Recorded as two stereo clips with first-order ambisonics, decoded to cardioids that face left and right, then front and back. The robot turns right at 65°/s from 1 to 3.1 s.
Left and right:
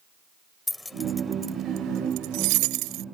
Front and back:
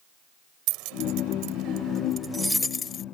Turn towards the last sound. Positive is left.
turn(degrees=-50)